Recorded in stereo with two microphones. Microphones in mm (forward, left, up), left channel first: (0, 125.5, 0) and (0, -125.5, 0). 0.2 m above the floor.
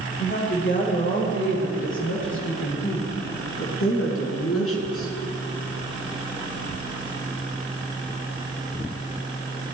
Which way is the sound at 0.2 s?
45° left (ahead or behind).